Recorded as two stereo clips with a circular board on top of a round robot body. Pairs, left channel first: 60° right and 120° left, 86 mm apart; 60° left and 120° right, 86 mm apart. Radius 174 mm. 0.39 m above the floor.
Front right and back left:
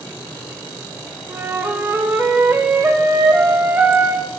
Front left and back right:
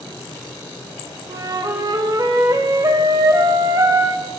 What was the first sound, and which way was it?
A flute, 175° right.